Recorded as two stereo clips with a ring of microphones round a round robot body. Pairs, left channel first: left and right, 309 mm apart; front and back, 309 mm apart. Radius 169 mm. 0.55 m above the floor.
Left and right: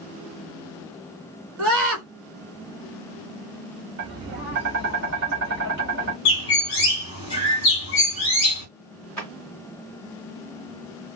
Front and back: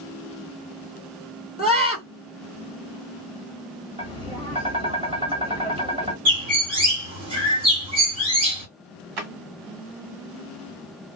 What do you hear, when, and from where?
1.6 s a scream: 115° right, 1.8 m
4.0 s tapping: 120° right, 1.4 m
6.2 s a bird: 115° left, 1.7 m
9.2 s a drawer: 175° left, 1.4 m